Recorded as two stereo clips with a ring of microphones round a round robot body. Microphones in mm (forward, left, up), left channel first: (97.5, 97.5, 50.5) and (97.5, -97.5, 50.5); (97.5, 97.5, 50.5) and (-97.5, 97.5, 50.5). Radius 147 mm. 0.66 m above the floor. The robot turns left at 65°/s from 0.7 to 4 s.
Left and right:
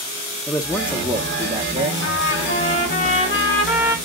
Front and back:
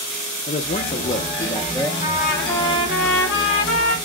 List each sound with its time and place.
0.5 s a man speaking: straight ahead, 1.2 m; by 1.9 s 75° right, 1.2 m
2.0 s a trumpet: 110° left, 4 m; by 4.0 s 20° right, 4 m